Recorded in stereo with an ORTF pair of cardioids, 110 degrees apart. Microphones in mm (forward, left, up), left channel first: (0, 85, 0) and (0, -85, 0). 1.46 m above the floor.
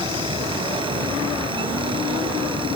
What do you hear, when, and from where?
0.0 s a fan: 30° right